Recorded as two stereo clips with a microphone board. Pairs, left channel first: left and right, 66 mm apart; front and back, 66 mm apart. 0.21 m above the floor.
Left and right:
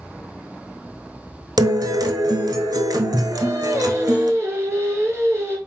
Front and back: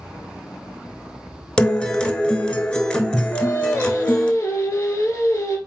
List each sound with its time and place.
1.6 s a guitar: 75° right, 0.7 m
3.3 s singing: 45° right, 2 m